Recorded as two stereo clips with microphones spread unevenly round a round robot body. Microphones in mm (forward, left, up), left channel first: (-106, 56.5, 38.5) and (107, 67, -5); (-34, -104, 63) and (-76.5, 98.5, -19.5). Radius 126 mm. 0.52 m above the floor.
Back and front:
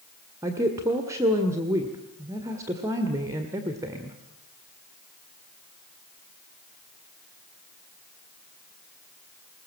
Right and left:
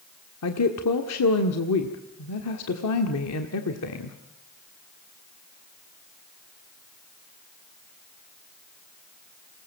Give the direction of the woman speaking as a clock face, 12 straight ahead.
2 o'clock.